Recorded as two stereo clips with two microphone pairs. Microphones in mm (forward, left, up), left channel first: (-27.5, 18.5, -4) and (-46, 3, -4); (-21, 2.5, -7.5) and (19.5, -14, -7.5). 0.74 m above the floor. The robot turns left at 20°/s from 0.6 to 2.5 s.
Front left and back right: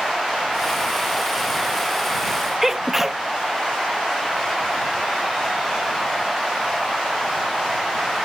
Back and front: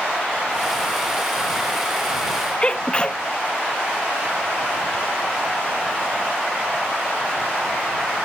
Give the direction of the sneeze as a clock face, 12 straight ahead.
6 o'clock.